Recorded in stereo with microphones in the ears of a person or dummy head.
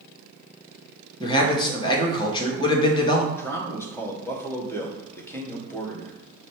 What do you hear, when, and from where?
1.2 s a man speaking: 25° left (ahead or behind), 0.9 m
3.3 s a man speaking: 15° left (ahead or behind), 0.8 m